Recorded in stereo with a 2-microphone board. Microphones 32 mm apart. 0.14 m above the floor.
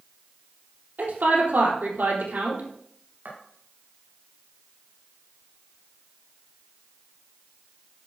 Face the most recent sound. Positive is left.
turn(degrees=-80)